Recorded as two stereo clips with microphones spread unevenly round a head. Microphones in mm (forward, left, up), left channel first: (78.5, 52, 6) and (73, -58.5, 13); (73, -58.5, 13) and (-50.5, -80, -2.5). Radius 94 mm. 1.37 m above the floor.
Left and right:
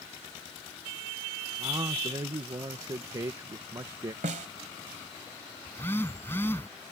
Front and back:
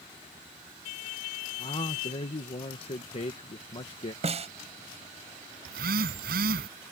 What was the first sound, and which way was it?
A man speaking, 35° right.